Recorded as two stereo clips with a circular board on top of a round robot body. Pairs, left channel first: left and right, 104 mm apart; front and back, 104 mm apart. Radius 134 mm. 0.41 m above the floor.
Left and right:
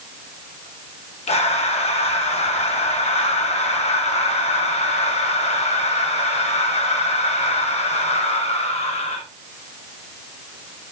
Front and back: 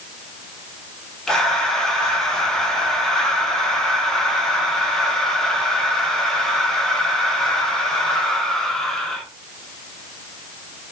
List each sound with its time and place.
1.3 s breathing: 85° left, 0.9 m